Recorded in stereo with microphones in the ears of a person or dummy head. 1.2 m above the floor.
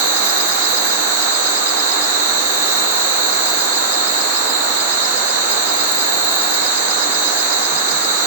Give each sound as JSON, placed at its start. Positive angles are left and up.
{"t": 0.0, "sound": "an insect", "side_deg": 75, "distance_m": 2.5}